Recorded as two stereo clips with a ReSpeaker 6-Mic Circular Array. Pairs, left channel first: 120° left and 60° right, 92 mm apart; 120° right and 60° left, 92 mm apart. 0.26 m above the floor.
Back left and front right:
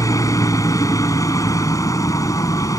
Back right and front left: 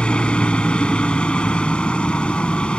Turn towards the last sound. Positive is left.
turn(degrees=165)